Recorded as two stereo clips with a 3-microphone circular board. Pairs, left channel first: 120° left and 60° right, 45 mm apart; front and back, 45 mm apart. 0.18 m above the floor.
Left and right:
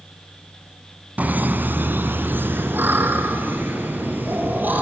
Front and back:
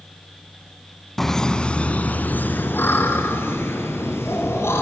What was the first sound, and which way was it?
Laughter, 80° right.